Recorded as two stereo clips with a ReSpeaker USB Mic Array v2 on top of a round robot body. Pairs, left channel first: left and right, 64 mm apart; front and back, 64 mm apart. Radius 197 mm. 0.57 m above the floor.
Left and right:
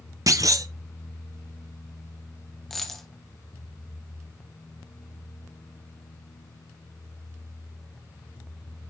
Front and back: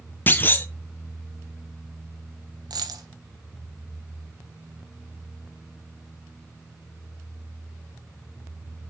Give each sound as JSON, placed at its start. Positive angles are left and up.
{"t": 0.3, "sound": "a clunk", "azimuth_deg": -60, "distance_m": 0.8}
{"t": 2.7, "sound": "a dropped coin", "azimuth_deg": 175, "distance_m": 1.2}